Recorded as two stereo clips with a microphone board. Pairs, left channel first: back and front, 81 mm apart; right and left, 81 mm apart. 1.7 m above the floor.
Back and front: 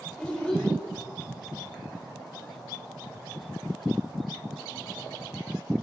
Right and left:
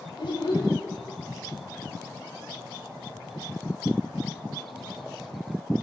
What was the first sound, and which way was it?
A child speaking, 100° right.